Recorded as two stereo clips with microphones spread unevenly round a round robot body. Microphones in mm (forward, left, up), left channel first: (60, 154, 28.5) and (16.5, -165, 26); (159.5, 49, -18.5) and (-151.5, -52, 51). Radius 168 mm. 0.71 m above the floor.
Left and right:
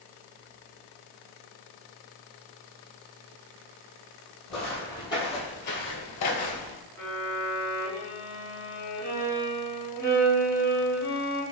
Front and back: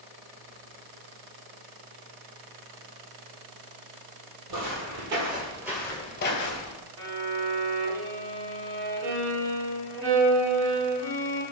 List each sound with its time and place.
4.5 s footsteps: 170° left, 1.5 m; by 6.8 s 50° left, 1.1 m
7.0 s a violin: 165° left, 1.9 m